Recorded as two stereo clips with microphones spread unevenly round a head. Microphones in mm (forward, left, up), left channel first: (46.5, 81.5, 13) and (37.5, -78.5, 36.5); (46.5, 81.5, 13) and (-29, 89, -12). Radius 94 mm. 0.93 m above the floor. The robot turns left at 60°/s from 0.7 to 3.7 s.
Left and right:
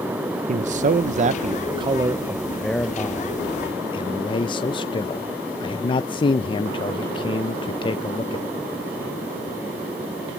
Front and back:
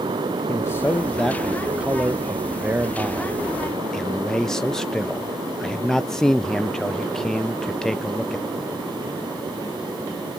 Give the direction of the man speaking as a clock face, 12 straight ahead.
3 o'clock.